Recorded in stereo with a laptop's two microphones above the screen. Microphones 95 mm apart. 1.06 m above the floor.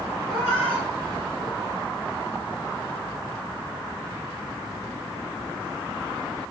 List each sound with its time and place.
0.3 s a cat meowing: 10° left (ahead or behind), 2.5 m; by 1.9 s 35° left (ahead or behind), 1.8 m